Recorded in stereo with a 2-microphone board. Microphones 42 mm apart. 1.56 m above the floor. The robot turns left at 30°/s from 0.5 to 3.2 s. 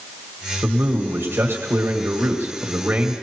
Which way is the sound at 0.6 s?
55° right.